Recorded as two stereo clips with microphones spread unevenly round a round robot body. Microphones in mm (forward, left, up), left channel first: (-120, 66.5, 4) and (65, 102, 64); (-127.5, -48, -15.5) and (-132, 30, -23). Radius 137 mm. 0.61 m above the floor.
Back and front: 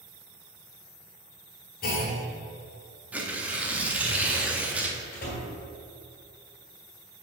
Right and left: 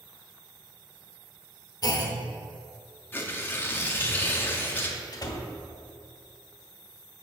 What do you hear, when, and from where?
1.8 s a clunk: 130° right, 1.0 m
3.1 s tearing paper: 110° right, 0.7 m
5.1 s a door slam: 125° right, 1.3 m